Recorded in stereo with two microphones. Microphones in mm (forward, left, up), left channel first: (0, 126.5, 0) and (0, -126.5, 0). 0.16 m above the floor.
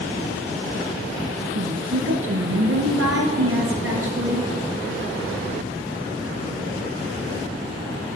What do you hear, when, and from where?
1.6 s a woman speaking: 60° right (ahead or behind), 2 m